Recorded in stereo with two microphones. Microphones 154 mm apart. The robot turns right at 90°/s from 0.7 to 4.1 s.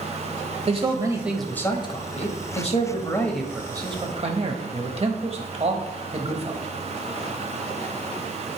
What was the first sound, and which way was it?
A man speaking, 65° right.